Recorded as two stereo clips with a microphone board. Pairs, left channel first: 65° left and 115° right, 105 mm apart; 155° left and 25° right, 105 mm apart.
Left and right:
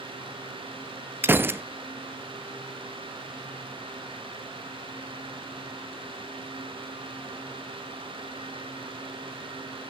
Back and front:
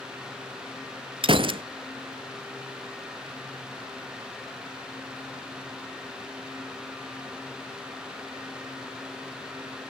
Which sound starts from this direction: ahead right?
A gunshot, at 1.2 s.